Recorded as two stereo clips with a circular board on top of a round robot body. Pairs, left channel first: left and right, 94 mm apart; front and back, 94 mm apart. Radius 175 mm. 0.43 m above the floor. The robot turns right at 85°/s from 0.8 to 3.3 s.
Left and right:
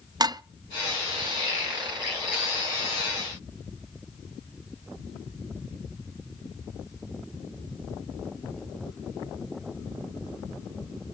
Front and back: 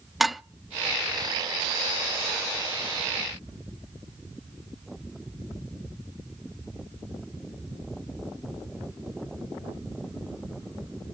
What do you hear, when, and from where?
0.2 s dishes clattering: 90° right, 0.6 m